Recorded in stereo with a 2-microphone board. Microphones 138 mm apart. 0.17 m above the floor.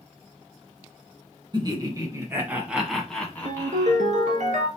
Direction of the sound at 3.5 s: 60° right (ahead or behind).